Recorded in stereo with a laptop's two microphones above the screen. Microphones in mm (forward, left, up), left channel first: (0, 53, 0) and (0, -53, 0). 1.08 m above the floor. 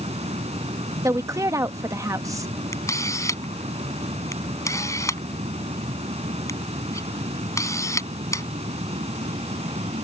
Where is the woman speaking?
30° right (ahead or behind).